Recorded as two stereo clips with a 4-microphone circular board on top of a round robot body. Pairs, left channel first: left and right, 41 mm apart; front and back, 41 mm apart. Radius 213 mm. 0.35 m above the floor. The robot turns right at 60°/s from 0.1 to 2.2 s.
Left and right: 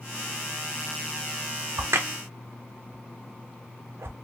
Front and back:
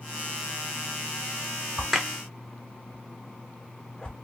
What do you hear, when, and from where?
1.8 s a crack: 100° right, 0.7 m; by 4.2 s 75° right, 0.7 m